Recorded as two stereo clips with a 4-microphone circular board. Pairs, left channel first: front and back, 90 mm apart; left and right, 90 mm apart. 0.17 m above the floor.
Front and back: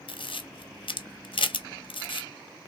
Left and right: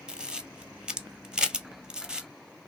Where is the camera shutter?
10° right, 1.0 m.